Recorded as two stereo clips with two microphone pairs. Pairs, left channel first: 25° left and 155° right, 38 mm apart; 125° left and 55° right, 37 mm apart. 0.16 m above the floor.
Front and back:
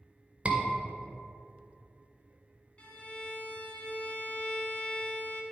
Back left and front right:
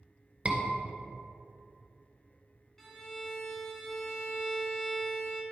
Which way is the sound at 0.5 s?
100° right.